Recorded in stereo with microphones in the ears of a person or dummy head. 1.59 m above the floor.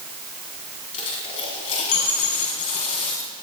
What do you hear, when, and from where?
0.9 s a dropped coin: 35° left (ahead or behind), 5 m